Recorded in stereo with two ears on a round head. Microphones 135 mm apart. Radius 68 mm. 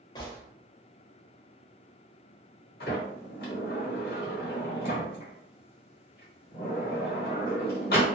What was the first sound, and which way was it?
A gunshot, 25° left (ahead or behind).